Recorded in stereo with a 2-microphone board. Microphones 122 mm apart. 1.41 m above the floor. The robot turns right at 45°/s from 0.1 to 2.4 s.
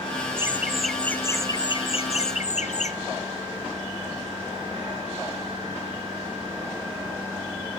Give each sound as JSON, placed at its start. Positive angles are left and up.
{"t": 0.4, "sound": "laughter", "azimuth_deg": -20, "distance_m": 1.4}